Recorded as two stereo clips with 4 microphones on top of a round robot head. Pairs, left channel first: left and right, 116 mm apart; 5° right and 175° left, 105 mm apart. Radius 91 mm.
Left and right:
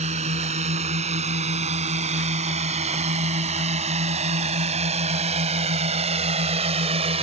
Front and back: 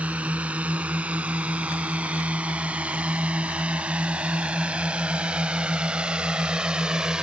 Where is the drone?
105° right.